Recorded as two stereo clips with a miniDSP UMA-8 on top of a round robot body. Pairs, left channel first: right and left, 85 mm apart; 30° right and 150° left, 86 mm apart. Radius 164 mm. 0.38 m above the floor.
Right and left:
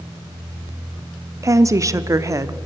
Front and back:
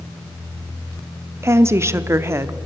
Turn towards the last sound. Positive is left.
turn(degrees=110)